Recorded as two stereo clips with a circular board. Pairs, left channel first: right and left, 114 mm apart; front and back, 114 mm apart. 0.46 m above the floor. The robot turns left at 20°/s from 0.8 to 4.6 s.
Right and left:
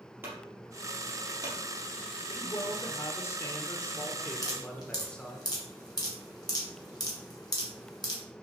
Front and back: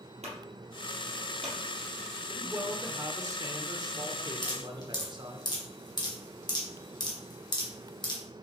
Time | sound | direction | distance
0.2 | a clunk | 160° left | 3 m
2.3 | a man speaking | 120° right | 1.0 m
4.4 | dripping | 40° right | 2 m